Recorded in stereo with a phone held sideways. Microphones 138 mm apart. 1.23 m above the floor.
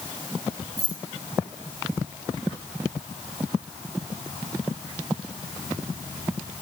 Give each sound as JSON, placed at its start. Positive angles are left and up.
{"t": 0.8, "sound": "keys jangling", "side_deg": -25, "distance_m": 5.0}